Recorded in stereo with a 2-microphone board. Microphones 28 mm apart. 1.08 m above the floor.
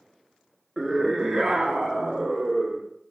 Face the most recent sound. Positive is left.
turn(degrees=0)  # may be behind; listen again after turning